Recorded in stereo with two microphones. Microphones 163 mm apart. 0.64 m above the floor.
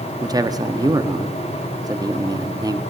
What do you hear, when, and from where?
0.2 s a man speaking: 25° right (ahead or behind), 0.7 m